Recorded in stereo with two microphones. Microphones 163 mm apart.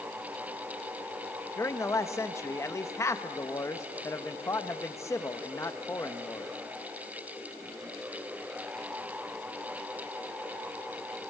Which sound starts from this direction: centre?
A man speaking, at 1.6 s.